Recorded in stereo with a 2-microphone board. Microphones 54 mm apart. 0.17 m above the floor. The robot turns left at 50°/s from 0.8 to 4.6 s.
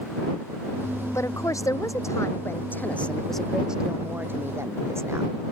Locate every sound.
1.1 s a woman speaking: 115° left; by 5.3 s 60° right